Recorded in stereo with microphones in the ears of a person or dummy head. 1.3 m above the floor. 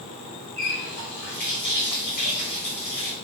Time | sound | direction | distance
0.6 | a running tap | 50° left (ahead or behind) | 2 m